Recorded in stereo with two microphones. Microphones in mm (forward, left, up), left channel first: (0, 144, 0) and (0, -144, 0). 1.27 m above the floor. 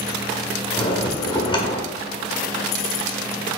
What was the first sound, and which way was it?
A bell, 15° left (ahead or behind).